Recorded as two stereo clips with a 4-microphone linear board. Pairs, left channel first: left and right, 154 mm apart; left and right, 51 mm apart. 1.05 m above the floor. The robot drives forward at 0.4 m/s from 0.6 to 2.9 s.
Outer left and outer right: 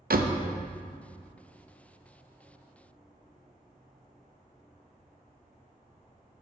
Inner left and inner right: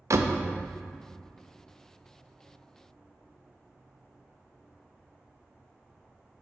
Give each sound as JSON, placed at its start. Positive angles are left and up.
{"t": 0.1, "sound": "a door slam", "side_deg": -75, "distance_m": 0.5}